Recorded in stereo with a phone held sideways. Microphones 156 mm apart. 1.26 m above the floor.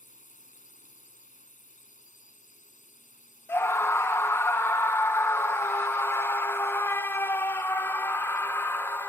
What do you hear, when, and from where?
0.0 s a drone: 55° left (ahead or behind)
3.5 s a scream: 15° left (ahead or behind)